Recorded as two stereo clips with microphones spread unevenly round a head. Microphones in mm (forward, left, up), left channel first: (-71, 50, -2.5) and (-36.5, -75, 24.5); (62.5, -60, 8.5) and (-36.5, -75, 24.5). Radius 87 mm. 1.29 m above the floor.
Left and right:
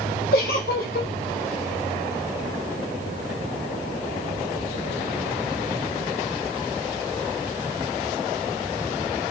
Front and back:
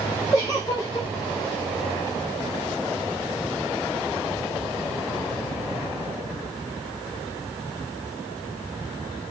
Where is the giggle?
80° left, 0.8 m.